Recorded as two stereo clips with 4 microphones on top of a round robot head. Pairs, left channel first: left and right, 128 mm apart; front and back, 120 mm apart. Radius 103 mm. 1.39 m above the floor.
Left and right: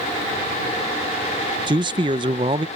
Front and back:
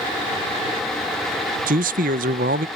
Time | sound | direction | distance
1.7 | a man speaking | 155° right | ?